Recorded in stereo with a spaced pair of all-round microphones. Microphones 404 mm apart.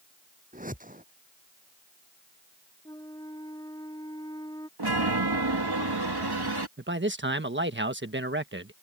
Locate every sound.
0.5 s a whoosh: 20° right (ahead or behind)
2.9 s a flute: 10° left (ahead or behind)
4.8 s a chime: 70° right (ahead or behind)
6.8 s a man speaking: 30° right (ahead or behind)